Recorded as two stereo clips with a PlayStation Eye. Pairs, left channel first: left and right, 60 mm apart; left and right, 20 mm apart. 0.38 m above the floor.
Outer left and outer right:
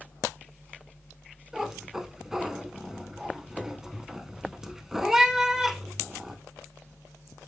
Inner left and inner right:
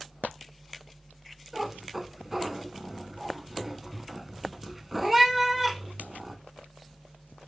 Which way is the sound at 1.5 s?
10° right (ahead or behind).